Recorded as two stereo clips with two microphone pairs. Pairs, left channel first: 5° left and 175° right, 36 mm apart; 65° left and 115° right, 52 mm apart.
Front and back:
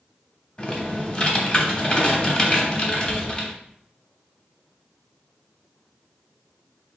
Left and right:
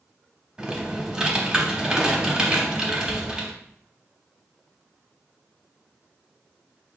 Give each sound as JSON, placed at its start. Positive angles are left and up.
{"t": 0.6, "sound": "typing on a keyboard", "azimuth_deg": -45, "distance_m": 0.9}